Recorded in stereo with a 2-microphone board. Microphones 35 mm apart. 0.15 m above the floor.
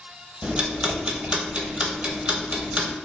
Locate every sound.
0.4 s ticking: 35° right (ahead or behind), 0.9 m